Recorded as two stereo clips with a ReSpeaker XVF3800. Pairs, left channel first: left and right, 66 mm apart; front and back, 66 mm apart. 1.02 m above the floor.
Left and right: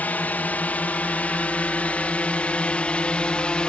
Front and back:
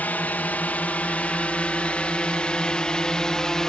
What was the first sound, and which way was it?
A drone, 45° left.